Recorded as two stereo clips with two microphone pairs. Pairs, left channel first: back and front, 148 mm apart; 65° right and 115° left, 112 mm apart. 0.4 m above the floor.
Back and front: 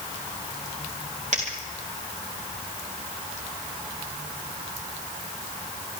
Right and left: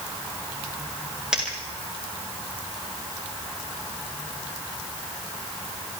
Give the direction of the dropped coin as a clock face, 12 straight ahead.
11 o'clock.